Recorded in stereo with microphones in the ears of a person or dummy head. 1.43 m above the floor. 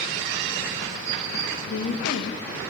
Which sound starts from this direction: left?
A woman speaking, at 1.7 s.